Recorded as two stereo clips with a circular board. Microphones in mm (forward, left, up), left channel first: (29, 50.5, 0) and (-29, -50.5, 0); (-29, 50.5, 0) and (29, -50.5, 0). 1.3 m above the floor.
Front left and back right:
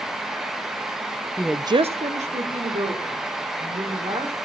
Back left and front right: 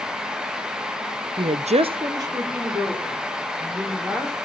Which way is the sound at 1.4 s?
15° right.